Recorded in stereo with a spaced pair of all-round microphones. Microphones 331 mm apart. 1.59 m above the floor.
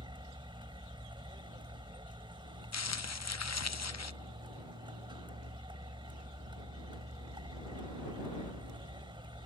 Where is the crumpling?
50° left (ahead or behind).